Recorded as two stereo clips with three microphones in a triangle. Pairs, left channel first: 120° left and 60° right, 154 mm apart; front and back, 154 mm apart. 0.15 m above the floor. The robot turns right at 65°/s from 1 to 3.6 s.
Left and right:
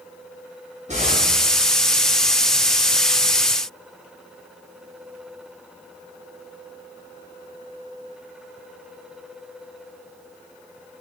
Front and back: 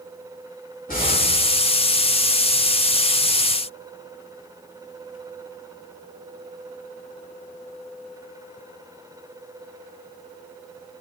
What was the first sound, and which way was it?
An explosion, 20° right.